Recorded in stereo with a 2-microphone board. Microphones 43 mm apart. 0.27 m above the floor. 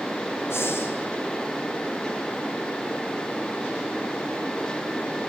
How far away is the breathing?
About 6.5 m.